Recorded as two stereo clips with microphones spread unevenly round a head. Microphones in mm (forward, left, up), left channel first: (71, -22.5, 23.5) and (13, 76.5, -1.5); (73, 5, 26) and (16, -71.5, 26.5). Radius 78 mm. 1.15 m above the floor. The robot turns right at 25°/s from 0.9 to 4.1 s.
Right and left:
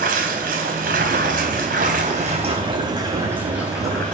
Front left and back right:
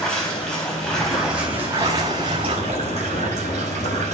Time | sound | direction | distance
0.0 | running water | 140° left | 4 m